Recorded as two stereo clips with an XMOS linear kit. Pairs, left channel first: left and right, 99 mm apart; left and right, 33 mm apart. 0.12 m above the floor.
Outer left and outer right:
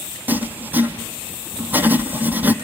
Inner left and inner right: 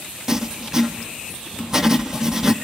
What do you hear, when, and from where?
0.3 s writing: 20° right (ahead or behind), 1.0 m